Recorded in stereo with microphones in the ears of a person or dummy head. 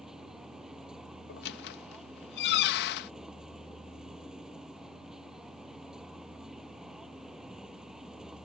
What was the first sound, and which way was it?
A vehicle, centre (ahead or behind).